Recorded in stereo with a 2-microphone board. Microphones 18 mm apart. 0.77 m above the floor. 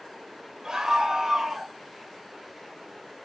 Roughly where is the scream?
Right.